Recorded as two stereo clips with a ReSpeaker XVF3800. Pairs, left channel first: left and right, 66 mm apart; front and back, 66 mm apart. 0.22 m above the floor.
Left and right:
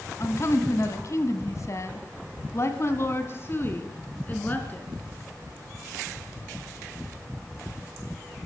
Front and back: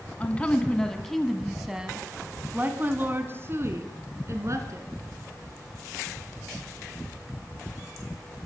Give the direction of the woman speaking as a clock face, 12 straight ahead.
10 o'clock.